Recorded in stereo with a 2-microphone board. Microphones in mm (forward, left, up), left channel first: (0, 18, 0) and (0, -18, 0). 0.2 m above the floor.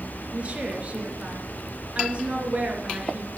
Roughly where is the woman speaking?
Right.